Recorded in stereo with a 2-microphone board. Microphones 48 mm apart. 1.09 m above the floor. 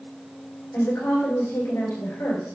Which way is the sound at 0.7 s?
70° left (ahead or behind).